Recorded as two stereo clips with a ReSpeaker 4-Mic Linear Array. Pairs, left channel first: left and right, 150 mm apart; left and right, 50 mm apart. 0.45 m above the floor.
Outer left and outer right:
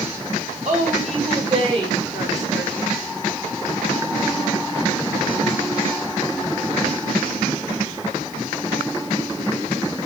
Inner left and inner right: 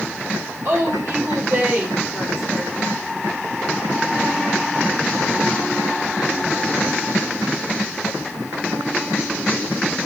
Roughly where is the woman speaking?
Right.